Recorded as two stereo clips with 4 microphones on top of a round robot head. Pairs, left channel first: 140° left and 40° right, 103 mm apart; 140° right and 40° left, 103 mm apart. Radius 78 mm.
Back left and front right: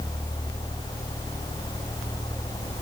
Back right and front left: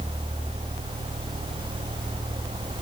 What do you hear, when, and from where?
Only background noise.